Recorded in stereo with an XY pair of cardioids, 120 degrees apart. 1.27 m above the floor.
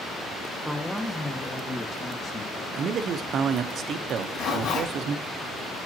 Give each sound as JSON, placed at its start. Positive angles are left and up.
{"t": 0.7, "sound": "a man speaking", "azimuth_deg": -10, "distance_m": 1.0}
{"t": 2.7, "sound": "a man speaking", "azimuth_deg": -55, "distance_m": 0.7}
{"t": 4.2, "sound": "a zipper", "azimuth_deg": 70, "distance_m": 3.0}